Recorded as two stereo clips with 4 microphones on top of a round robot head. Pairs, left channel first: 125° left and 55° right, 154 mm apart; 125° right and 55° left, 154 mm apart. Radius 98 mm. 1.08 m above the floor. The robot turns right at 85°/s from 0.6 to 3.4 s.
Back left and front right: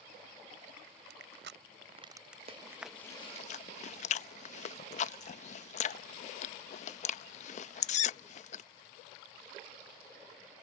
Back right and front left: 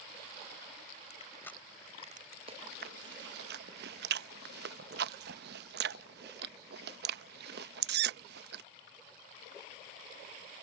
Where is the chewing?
Straight ahead; by 8.6 s 75° left.